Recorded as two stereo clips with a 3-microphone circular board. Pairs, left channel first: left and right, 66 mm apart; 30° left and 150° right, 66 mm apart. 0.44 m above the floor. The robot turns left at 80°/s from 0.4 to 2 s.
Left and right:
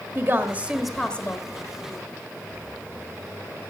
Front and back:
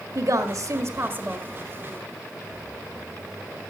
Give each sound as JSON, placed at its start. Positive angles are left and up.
{"t": 0.1, "sound": "a woman speaking", "azimuth_deg": -140, "distance_m": 1.5}